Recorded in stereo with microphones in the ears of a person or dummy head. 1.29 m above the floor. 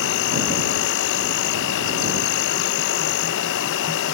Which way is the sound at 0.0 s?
65° left (ahead or behind).